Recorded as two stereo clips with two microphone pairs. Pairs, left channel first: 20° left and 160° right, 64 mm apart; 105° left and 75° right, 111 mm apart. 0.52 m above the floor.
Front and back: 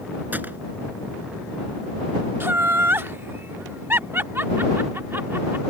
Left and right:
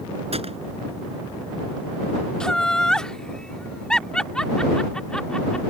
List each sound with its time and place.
0.3 s a gunshot: 95° right
2.4 s laughter: 170° right